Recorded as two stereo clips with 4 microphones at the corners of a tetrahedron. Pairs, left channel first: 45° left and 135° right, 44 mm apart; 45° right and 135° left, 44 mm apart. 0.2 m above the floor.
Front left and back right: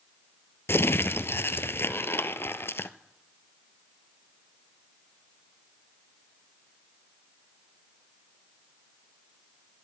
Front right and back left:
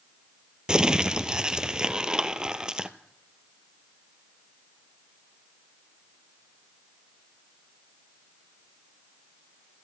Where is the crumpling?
65° left, 0.7 m.